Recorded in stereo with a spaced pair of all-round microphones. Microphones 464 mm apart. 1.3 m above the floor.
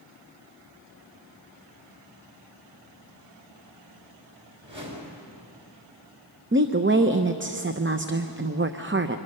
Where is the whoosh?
70° right (ahead or behind), 4 m.